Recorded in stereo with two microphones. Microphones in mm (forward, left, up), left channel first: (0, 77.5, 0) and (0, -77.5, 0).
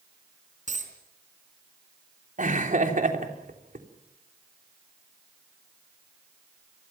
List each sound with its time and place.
0.7 s a dropped coin: 55° right (ahead or behind), 4 m
2.4 s laughter: 60° right (ahead or behind), 3.5 m